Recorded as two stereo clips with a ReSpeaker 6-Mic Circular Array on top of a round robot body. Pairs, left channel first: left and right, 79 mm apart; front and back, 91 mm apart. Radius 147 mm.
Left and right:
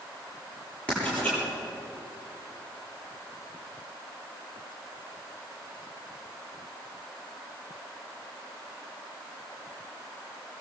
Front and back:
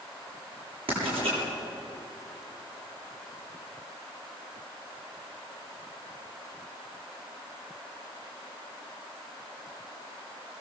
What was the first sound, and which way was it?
Writing, 165° left.